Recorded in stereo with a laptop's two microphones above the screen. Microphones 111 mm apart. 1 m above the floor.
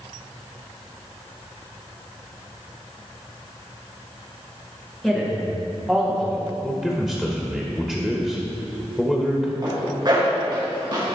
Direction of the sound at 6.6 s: 5° left (ahead or behind).